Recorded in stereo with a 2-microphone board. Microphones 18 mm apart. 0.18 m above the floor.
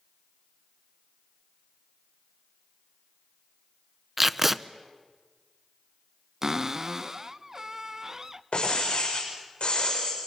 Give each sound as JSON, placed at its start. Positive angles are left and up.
{"t": 4.2, "sound": "tape being pulled", "side_deg": -15, "distance_m": 0.5}
{"t": 6.4, "sound": "a cupboard door", "side_deg": -30, "distance_m": 0.6}
{"t": 8.5, "sound": "breaking glass", "side_deg": 75, "distance_m": 8.0}